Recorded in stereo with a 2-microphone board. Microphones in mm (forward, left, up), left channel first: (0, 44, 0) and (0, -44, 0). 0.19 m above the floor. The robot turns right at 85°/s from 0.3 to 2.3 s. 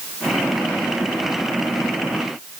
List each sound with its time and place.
Only background noise.